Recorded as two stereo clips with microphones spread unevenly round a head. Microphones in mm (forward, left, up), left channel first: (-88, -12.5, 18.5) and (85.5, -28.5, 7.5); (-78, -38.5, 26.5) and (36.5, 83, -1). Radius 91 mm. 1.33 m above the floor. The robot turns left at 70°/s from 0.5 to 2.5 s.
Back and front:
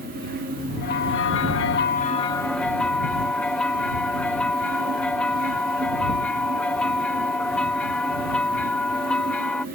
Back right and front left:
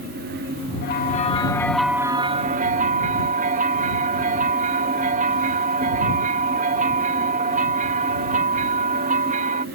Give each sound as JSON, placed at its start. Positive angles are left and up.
{"t": 0.8, "sound": "a bell", "azimuth_deg": -150}